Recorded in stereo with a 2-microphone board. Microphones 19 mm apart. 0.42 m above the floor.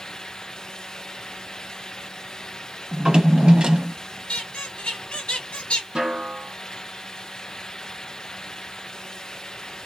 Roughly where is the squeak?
Left.